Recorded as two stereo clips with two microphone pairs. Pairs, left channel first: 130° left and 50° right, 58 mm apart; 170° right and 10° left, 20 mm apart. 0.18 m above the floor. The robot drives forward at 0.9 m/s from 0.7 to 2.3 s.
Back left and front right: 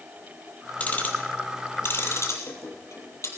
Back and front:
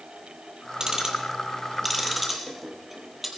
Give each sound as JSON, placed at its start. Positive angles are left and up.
{"t": 0.8, "sound": "ticking", "azimuth_deg": 70, "distance_m": 2.5}